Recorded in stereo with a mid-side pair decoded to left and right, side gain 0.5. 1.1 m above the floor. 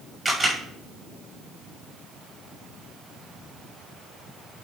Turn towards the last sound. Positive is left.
turn(degrees=-15)